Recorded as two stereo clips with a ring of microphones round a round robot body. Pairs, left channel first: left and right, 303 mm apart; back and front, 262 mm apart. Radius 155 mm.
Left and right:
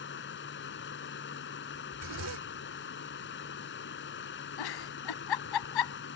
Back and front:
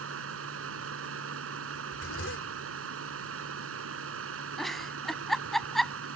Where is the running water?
35° left.